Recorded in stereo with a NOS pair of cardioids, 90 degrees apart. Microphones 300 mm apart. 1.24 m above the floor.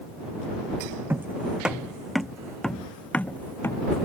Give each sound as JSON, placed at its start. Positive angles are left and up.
{"t": 1.1, "sound": "footsteps", "azimuth_deg": -5}